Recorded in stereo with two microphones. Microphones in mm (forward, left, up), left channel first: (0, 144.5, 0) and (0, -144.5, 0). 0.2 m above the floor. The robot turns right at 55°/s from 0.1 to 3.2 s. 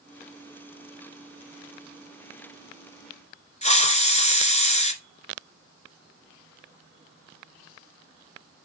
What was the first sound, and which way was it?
A hiss, 25° left (ahead or behind).